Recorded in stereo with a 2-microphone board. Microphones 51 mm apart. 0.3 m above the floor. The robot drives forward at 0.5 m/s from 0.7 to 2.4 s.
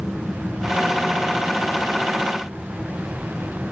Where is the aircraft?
15° right (ahead or behind).